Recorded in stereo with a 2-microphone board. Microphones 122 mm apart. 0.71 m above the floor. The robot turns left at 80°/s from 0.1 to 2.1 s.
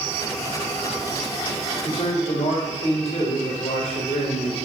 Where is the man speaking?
60° left (ahead or behind), 3.5 m; by 4.7 s 75° left (ahead or behind), 3.5 m.